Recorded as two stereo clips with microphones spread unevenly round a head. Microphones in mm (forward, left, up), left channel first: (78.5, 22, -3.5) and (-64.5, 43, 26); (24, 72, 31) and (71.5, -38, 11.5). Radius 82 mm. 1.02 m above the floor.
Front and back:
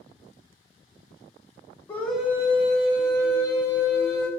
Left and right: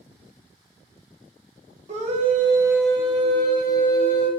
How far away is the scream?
About 0.6 m.